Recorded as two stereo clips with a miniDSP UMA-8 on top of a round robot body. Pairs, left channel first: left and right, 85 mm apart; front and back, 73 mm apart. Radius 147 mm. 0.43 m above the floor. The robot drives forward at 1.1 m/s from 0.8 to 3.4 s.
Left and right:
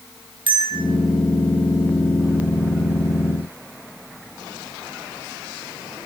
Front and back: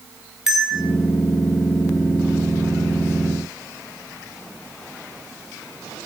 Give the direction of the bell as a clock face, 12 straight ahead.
3 o'clock.